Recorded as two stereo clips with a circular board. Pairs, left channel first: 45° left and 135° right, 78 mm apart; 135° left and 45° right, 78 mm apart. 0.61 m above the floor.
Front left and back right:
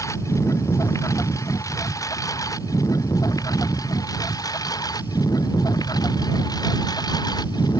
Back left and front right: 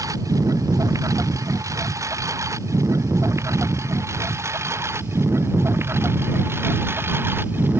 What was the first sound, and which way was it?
A lawn mower, straight ahead.